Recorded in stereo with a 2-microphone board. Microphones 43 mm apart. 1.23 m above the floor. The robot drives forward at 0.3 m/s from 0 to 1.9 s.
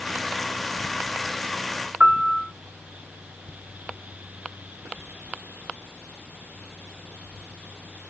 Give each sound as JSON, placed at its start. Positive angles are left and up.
{"t": 2.0, "sound": "a piano", "side_deg": -50, "distance_m": 1.0}